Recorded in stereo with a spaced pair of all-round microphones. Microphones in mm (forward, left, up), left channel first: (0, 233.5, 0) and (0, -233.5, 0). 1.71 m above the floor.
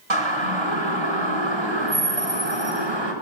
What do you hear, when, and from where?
0.1 s a siren: 85° right, 7 m; by 3.1 s 65° right (ahead or behind), 7 m